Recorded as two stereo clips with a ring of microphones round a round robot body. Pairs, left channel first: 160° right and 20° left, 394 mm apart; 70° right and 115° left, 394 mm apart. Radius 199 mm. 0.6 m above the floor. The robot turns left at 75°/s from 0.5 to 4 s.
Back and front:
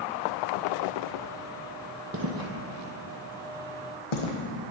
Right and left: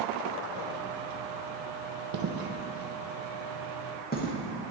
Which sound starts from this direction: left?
Footsteps, at 2.1 s.